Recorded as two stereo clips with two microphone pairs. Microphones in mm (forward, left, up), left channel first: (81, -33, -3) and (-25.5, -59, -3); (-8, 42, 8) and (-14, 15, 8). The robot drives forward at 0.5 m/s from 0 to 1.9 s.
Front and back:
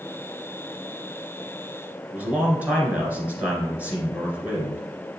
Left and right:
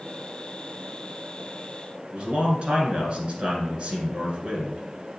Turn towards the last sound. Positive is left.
turn(degrees=-95)